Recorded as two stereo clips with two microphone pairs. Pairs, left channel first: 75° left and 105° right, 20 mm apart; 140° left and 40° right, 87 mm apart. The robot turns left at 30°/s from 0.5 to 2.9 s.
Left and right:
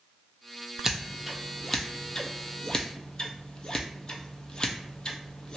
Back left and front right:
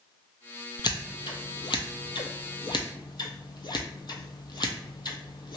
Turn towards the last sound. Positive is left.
turn(degrees=115)